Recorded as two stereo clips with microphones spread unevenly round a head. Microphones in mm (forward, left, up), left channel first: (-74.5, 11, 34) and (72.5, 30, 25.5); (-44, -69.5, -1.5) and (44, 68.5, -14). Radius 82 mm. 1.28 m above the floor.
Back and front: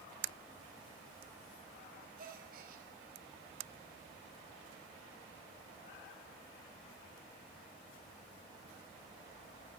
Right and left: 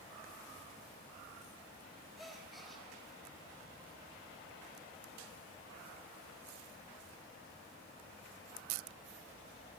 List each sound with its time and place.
2.2 s a gasp: 35° right, 4 m